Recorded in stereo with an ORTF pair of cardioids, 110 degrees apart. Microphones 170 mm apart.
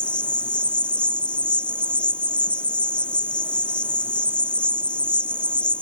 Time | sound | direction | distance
0.0 | an insect | 5° left | ?